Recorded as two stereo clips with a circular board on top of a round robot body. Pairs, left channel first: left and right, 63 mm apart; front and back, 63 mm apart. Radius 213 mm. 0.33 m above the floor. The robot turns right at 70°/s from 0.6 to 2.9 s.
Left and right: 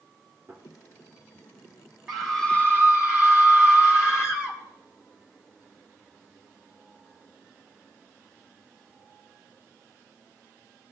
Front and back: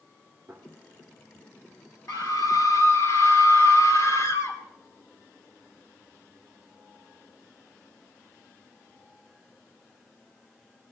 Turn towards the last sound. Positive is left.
turn(degrees=45)